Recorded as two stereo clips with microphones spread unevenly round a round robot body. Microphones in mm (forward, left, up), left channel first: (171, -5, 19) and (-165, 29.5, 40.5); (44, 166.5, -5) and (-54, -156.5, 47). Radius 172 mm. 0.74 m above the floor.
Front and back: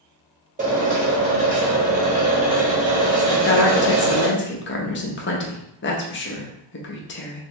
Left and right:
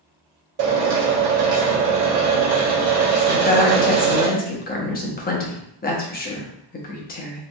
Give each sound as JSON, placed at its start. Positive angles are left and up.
{"t": 0.6, "sound": "a drill", "azimuth_deg": -120, "distance_m": 1.2}
{"t": 3.3, "sound": "a woman speaking", "azimuth_deg": 30, "distance_m": 0.8}